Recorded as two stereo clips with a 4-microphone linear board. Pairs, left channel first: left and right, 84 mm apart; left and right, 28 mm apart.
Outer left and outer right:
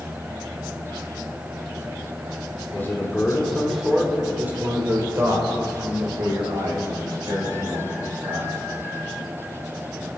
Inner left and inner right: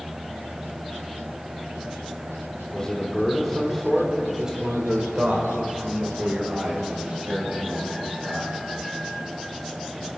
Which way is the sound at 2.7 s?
25° left (ahead or behind).